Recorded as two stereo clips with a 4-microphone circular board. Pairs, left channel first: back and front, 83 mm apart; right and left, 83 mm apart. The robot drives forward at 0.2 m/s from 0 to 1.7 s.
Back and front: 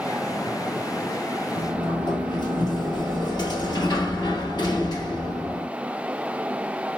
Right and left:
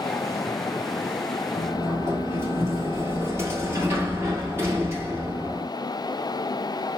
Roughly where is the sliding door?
Behind left.